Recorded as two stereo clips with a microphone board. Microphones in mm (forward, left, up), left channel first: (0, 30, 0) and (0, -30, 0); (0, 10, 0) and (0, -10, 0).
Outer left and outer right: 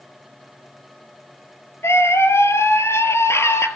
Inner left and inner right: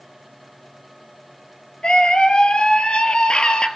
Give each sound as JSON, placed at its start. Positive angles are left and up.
{"t": 1.8, "sound": "a scream", "side_deg": 50, "distance_m": 2.5}